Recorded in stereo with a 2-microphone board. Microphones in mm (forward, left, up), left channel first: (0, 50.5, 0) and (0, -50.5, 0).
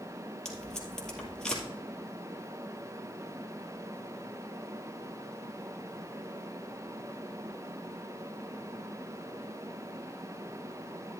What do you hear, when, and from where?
0.5 s tape being pulled: 5° left (ahead or behind), 2 m